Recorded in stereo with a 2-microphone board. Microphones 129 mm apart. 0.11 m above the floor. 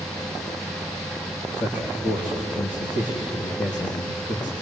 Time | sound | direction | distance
1.6 | a man speaking | 80° left | 5.5 m